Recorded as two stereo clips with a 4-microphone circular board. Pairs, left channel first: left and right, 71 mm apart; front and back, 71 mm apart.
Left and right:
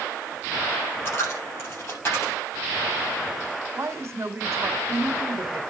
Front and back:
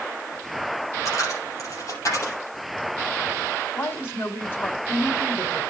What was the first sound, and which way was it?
A dropped coin, 35° left.